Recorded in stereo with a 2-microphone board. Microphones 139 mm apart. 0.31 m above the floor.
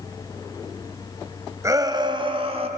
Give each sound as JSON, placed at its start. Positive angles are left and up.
{"t": 1.6, "sound": "a shout", "side_deg": -25, "distance_m": 1.6}